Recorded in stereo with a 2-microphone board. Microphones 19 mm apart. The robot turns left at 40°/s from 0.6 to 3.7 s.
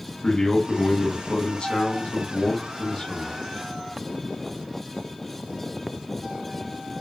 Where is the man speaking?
140° left, 1.5 m; by 3.4 s 25° left, 1.5 m.